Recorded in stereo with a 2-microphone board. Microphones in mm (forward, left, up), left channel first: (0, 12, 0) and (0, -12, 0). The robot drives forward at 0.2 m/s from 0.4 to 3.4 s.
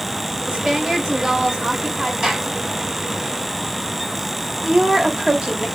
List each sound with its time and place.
0.5 s a woman speaking: 40° right (ahead or behind), 2 m; by 2.1 s 35° right (ahead or behind), 2.5 m
2.2 s a gunshot: 50° right (ahead or behind), 1.7 m
4.6 s a woman speaking: 45° right (ahead or behind), 1.6 m